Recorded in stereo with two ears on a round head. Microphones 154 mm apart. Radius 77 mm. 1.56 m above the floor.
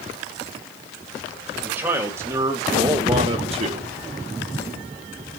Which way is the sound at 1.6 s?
10° right (ahead or behind).